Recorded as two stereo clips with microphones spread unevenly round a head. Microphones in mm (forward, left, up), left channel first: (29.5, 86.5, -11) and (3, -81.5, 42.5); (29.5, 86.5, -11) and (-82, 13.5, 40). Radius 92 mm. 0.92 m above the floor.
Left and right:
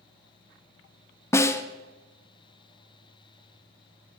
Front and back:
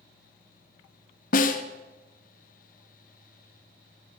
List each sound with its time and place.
1.3 s a snare drum: 10° left, 0.7 m